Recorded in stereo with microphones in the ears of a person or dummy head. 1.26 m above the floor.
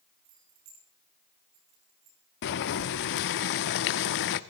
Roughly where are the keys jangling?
Right.